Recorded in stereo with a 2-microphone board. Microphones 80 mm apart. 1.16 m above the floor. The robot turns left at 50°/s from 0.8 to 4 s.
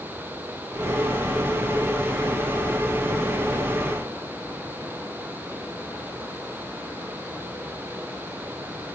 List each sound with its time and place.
Only background noise.